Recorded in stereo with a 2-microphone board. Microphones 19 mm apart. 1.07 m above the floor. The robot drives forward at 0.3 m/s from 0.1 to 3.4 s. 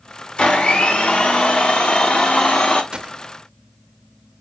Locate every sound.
0.4 s a blender: 70° left (ahead or behind), 1.4 m
2.9 s a gunshot: 45° right (ahead or behind), 0.6 m; by 3.2 s 40° right (ahead or behind), 0.7 m